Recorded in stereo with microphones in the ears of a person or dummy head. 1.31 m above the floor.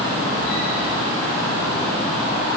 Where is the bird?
I don't hear a bird.